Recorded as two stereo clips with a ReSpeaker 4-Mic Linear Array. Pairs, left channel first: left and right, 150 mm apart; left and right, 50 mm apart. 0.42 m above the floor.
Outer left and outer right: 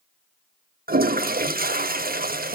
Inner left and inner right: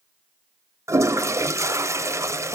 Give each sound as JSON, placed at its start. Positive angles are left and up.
{"t": 0.9, "sound": "a toilet flushing", "side_deg": -80, "distance_m": 0.5}